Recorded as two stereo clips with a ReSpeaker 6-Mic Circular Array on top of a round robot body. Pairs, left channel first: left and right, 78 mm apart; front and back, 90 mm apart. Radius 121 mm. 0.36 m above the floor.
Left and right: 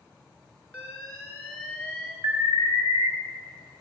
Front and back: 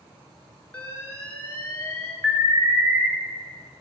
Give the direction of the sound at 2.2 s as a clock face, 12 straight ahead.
4 o'clock.